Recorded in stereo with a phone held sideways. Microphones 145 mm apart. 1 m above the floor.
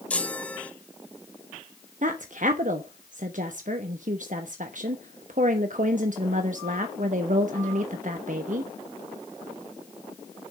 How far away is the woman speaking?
About 1.0 m.